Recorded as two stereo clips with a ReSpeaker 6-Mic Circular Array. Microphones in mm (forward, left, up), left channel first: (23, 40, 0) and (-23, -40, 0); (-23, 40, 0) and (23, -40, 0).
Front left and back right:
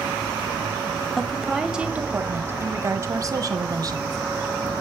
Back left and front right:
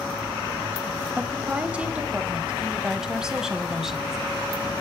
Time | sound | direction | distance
1.2 | a woman speaking | 20° right | 1.1 m